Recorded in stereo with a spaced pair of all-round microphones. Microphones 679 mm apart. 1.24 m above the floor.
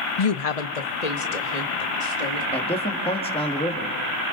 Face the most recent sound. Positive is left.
turn(degrees=10)  # may be behind; listen again after turning